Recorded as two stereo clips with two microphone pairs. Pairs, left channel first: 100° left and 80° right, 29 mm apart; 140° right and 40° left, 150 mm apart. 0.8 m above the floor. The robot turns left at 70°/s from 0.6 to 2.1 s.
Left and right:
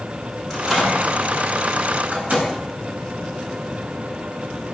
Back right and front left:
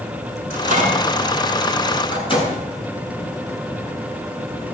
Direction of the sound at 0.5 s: 20° left.